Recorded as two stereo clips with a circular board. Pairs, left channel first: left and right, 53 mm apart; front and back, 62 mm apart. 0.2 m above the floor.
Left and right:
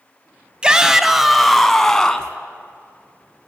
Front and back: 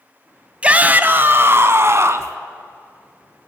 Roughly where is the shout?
Behind right.